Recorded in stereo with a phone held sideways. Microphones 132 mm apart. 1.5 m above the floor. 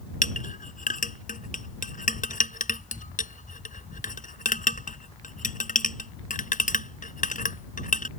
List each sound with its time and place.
0.2 s a clink: 80° left